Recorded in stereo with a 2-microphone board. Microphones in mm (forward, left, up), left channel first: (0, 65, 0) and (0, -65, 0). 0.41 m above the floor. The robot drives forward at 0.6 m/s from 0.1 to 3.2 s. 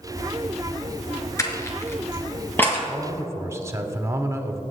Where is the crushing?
25° left (ahead or behind), 1.5 m; by 2.8 s 15° left (ahead or behind), 2 m.